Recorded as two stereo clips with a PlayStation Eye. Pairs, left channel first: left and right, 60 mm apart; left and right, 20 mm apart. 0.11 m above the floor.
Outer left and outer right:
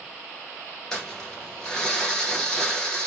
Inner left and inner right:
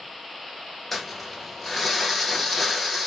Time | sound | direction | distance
0.9 | crumpling | 10° left (ahead or behind) | 1.3 m